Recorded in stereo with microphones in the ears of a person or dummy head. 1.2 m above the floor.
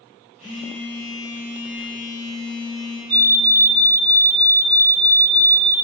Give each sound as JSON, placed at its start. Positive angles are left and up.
{"t": 0.4, "sound": "a phone buzzing", "side_deg": -5, "distance_m": 6.0}
{"t": 3.1, "sound": "a fire alarm", "side_deg": -60, "distance_m": 4.0}